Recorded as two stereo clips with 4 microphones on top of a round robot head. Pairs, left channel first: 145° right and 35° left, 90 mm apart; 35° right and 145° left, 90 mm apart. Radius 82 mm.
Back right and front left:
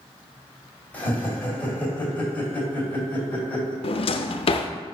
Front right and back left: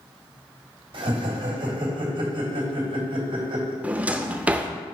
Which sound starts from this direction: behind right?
A drawer, at 3.8 s.